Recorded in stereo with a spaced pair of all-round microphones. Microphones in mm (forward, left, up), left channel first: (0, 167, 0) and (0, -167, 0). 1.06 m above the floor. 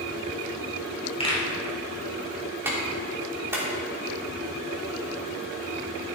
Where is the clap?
5° right (ahead or behind), 3 m.